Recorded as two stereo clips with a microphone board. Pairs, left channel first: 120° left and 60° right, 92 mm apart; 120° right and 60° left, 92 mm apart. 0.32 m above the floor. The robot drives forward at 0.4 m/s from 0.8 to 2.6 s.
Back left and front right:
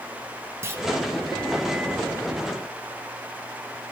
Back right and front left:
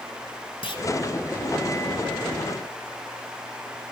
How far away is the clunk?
About 1.5 m.